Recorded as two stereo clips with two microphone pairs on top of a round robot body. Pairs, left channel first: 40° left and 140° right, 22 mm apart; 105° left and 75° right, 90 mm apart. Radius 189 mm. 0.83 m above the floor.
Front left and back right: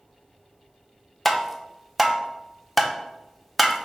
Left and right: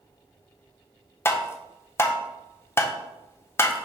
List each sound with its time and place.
1.2 s tapping: 135° left, 0.8 m